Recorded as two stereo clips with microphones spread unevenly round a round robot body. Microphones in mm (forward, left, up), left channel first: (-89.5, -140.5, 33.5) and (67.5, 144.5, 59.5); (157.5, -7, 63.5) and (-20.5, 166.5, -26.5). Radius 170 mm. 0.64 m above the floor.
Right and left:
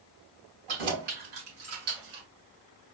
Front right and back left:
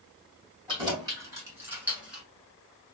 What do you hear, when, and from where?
0.7 s keys jangling: 65° left, 3.5 m; by 2.2 s 50° left, 2.5 m